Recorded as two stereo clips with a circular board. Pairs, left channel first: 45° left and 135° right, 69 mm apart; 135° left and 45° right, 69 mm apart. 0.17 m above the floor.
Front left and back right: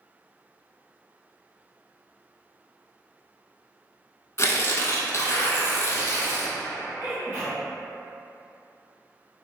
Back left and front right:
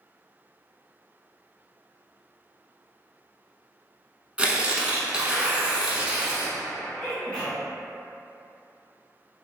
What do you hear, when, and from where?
4.4 s tearing paper: 20° left, 0.5 m
7.0 s a sneeze: 160° right, 1.6 m